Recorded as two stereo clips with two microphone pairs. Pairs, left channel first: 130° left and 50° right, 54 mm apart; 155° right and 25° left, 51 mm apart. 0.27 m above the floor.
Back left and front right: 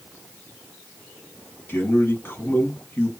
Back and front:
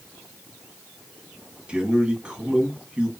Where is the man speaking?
90° left, 1.8 m.